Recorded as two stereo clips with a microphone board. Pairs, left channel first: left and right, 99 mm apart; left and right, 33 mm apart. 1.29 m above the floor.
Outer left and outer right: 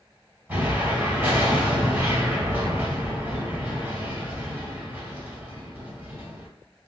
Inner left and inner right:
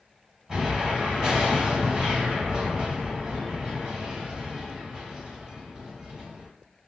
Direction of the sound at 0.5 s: 25° right (ahead or behind).